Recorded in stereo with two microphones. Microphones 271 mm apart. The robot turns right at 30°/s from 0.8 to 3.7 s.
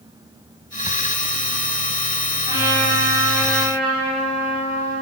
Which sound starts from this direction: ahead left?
A trumpet, at 2.5 s.